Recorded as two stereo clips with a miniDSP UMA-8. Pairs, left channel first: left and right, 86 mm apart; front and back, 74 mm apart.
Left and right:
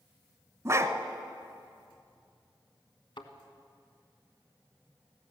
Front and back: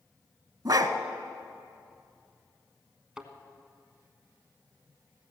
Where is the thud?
100° left, 1.3 m.